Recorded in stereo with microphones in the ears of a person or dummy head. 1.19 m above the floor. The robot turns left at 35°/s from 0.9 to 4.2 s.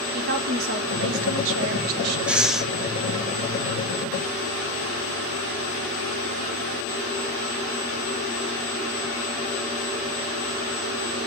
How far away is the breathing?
About 0.6 m.